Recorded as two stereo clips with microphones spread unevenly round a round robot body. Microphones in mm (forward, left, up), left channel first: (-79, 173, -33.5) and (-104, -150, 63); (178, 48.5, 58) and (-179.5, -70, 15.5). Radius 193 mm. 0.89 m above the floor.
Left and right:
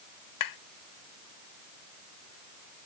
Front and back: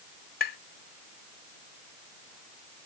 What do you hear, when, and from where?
0.4 s tapping: 85° left